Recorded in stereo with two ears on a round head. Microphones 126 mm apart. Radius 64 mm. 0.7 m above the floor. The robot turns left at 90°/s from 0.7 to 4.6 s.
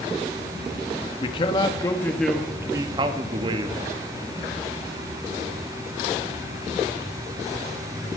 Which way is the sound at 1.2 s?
100° left.